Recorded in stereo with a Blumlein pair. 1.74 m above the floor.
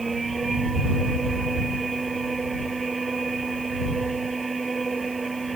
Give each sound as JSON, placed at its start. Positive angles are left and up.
{"t": 0.0, "sound": "a machine running", "azimuth_deg": -10}